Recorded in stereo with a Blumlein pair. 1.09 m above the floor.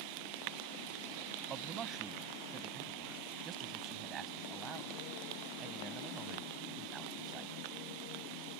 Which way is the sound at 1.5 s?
25° right.